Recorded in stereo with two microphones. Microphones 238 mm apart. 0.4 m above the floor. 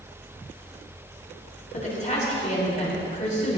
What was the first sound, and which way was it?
A woman speaking, 30° left (ahead or behind).